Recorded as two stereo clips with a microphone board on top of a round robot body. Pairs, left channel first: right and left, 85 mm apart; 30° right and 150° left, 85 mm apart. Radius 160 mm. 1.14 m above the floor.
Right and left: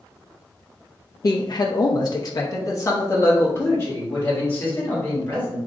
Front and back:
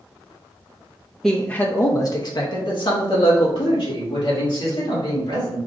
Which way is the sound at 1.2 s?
115° right.